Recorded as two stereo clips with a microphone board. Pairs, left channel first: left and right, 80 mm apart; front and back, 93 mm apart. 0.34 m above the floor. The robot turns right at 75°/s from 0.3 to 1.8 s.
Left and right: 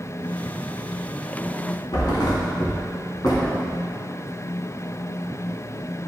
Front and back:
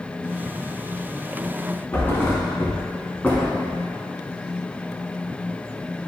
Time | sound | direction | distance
1.9 | a thud | 65° left | 1.5 m